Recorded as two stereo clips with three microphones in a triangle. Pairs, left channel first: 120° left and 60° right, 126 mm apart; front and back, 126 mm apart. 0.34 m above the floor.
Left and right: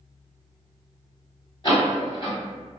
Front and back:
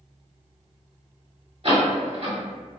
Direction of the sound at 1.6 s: 165° left.